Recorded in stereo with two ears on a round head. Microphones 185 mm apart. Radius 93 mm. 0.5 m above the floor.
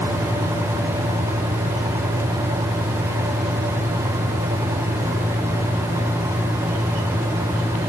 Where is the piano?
No piano in this recording.